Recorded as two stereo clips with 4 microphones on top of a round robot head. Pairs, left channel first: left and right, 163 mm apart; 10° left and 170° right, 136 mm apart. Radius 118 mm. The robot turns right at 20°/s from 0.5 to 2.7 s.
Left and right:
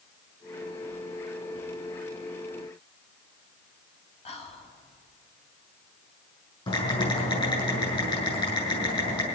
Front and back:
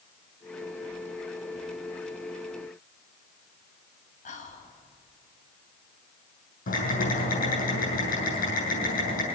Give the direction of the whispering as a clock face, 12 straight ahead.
11 o'clock.